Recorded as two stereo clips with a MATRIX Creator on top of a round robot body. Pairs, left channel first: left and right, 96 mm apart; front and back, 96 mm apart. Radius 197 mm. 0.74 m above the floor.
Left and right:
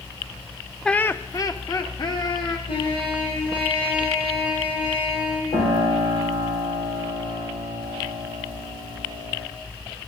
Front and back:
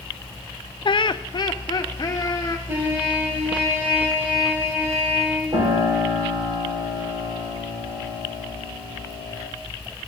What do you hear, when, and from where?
0.8 s laughter: 5° left, 0.7 m; by 2.6 s 50° left, 2.5 m
2.7 s a trumpet: 110° left, 8 m
5.5 s a piano: 130° left, 6.5 m